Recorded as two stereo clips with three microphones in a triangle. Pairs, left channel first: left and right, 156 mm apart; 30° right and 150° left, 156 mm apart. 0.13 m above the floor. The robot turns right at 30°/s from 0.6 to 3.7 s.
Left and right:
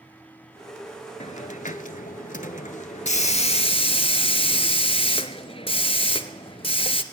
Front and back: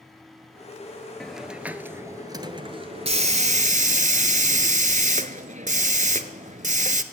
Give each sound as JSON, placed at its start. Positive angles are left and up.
{"t": 1.2, "sound": "a hiss", "azimuth_deg": 55, "distance_m": 0.6}